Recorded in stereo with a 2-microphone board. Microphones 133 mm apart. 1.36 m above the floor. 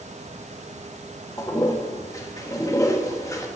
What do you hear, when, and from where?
1.4 s a toilet flushing: 25° left (ahead or behind), 1.3 m